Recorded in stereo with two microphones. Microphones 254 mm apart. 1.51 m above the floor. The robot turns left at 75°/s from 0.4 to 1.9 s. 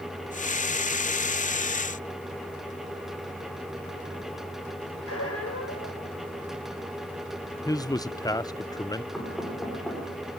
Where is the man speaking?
15° left (ahead or behind), 0.6 m.